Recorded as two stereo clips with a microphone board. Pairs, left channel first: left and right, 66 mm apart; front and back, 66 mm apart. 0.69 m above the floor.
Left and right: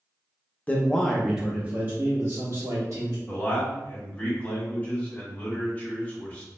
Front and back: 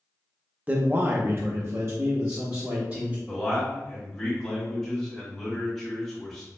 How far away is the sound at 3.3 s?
About 1.2 m.